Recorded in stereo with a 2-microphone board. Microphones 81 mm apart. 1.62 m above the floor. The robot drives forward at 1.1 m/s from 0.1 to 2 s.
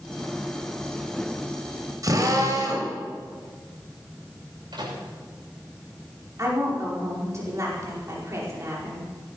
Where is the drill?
50° right (ahead or behind), 3.5 m.